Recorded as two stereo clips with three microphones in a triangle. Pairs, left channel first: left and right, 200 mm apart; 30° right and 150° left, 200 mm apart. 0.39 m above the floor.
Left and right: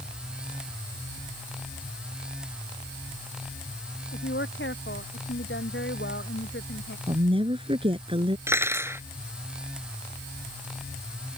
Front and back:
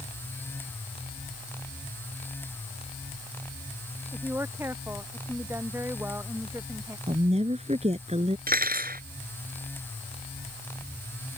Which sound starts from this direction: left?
A woman speaking, at 4.1 s.